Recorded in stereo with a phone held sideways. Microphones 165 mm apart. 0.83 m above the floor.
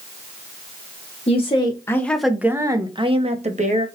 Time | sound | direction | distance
1.3 | a woman speaking | 40° left (ahead or behind) | 0.8 m